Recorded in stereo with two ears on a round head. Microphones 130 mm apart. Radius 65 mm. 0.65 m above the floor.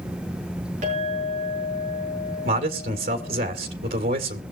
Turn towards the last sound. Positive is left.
turn(degrees=-65)  # may be behind; listen again after turning